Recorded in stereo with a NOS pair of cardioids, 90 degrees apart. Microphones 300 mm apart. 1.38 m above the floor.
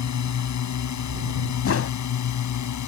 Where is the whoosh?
50° left.